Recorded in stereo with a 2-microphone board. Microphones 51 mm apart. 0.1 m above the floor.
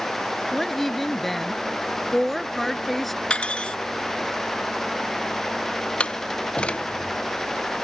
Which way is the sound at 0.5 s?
5° left (ahead or behind).